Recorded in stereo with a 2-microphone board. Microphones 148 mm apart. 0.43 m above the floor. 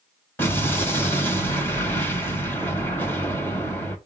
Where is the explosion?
15° left (ahead or behind), 3 m.